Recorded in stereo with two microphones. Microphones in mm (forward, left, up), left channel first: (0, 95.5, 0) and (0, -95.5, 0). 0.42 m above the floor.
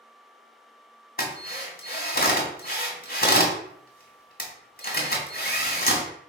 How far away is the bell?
No bell in this recording.